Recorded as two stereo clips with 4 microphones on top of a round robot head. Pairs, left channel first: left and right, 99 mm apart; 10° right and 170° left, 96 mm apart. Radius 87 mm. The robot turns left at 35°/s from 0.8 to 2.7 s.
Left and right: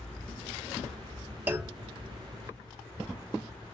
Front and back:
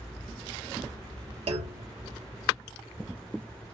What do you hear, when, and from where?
1.5 s a clunk: 160° right, 1.0 m; by 1.9 s 175° right, 1.0 m